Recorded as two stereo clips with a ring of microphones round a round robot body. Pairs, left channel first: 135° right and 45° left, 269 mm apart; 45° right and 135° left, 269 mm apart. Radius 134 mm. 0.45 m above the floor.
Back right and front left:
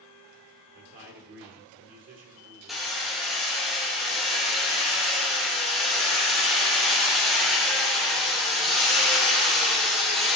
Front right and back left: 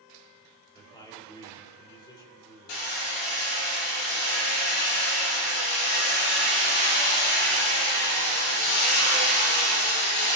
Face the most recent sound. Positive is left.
turn(degrees=-45)